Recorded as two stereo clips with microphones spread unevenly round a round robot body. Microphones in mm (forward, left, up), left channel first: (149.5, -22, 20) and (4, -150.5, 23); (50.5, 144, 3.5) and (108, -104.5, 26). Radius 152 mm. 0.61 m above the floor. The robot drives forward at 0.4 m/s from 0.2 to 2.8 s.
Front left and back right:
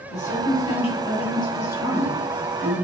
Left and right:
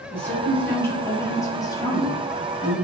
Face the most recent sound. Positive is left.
turn(degrees=135)